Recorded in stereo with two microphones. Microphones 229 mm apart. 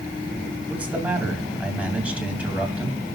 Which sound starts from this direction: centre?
A man speaking, at 0.7 s.